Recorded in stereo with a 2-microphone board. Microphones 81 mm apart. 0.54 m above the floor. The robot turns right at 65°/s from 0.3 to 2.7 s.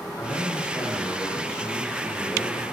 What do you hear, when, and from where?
0.2 s a man speaking: 25° left (ahead or behind), 0.7 m; by 2.6 s 20° right (ahead or behind), 0.7 m